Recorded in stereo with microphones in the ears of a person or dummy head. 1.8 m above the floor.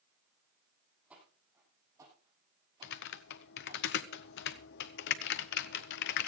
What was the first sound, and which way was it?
Footsteps, 10° right (ahead or behind).